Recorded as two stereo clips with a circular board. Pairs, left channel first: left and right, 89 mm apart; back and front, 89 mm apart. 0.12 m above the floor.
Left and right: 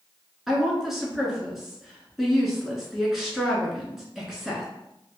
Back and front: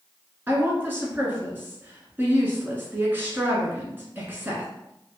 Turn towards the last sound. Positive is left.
turn(degrees=-10)